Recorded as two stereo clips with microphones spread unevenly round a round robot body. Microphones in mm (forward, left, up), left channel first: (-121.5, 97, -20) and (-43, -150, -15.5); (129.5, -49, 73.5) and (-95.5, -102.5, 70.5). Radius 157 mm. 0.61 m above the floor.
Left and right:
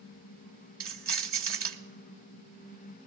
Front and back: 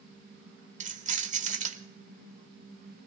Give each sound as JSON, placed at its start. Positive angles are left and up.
{"t": 0.8, "sound": "keys jangling", "azimuth_deg": -110, "distance_m": 1.5}